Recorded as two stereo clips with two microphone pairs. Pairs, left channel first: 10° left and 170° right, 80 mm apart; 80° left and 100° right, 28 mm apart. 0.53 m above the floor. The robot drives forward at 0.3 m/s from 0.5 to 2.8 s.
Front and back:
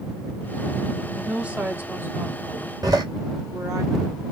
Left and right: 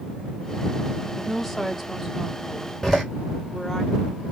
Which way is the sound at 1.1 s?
140° left.